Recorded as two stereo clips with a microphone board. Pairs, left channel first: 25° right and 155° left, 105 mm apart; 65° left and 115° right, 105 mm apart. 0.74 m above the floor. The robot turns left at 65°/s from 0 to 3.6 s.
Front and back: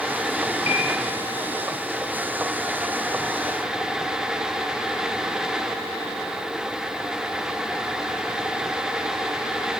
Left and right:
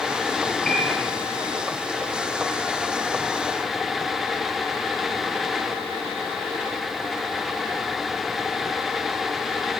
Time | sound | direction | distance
0.7 | a piano | 15° right | 4 m